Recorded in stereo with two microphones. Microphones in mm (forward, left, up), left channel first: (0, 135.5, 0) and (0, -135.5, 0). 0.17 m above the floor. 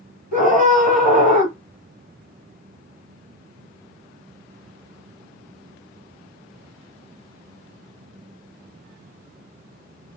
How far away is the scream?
About 3.5 m.